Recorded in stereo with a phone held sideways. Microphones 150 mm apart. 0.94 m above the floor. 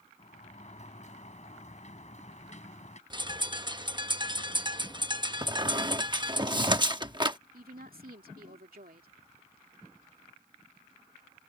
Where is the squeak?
30° right (ahead or behind).